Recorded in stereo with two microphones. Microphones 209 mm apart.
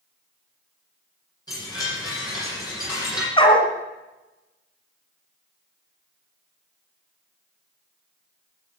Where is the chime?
20° left (ahead or behind), 8.5 m.